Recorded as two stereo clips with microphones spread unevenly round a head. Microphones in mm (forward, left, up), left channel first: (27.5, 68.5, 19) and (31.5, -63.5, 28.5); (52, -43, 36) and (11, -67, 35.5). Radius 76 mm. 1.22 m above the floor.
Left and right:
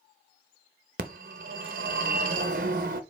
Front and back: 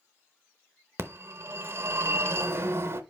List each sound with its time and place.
1.0 s a phone ringing: 125° right, 0.8 m